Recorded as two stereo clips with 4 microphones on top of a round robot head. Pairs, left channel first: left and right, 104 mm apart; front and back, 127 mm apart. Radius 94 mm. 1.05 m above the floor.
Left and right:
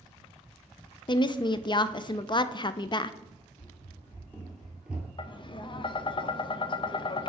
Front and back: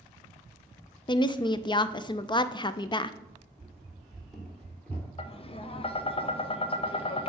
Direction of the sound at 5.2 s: 45° left.